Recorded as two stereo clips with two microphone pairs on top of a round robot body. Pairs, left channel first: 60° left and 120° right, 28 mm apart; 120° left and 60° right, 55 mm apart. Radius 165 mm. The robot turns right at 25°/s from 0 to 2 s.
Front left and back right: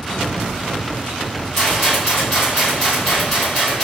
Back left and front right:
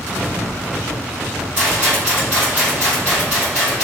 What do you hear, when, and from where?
1.6 s a rattle: 10° right, 0.7 m; by 3.9 s straight ahead, 0.7 m